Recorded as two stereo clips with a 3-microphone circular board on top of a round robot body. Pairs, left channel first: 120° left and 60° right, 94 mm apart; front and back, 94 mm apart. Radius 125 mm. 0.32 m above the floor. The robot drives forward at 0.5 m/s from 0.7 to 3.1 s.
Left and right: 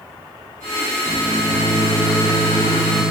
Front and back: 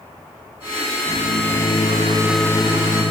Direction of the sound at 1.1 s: 60° left.